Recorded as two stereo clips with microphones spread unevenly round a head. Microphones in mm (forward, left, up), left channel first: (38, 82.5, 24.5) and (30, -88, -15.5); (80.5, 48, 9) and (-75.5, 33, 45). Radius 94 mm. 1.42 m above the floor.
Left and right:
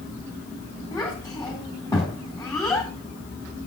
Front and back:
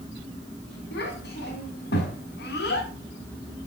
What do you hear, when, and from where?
0.9 s a child speaking: 15° left, 4 m